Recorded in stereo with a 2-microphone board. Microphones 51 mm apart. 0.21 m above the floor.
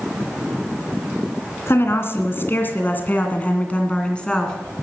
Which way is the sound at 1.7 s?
55° left (ahead or behind).